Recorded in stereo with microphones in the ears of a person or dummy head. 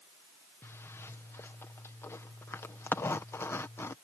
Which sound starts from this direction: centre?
A zipper, at 0.6 s.